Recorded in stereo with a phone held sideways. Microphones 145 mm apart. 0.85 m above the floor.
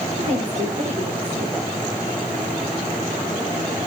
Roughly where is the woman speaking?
Right.